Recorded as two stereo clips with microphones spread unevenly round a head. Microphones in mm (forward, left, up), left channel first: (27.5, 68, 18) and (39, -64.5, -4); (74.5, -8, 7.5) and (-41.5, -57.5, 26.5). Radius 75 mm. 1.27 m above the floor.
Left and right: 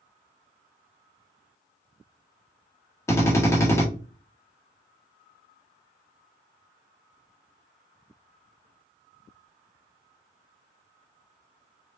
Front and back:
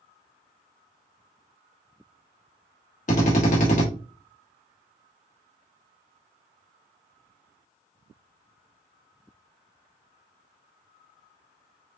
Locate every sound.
3.1 s a drill: 20° left, 1.5 m